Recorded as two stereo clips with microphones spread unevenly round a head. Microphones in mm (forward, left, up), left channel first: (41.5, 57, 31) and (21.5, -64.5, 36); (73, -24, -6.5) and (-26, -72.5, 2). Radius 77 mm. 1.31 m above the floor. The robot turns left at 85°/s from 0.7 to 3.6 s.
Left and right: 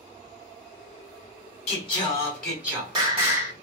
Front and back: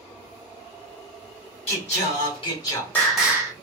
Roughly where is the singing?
Ahead left.